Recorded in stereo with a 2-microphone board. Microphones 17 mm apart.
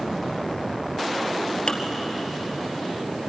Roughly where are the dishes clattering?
Left.